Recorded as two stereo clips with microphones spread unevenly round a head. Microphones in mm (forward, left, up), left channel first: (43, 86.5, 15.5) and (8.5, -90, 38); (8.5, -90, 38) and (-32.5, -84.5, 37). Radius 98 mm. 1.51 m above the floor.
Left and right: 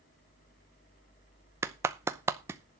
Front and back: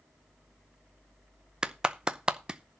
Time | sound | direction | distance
1.6 | a clap | 145° right | 0.6 m